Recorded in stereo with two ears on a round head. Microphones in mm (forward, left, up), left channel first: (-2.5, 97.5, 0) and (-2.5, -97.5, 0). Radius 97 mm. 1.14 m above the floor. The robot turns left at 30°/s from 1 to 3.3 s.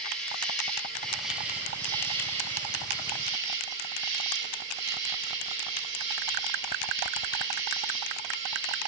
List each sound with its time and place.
0.0 s an insect: 5° left, 1.5 m; by 8.9 s 65° right, 1.5 m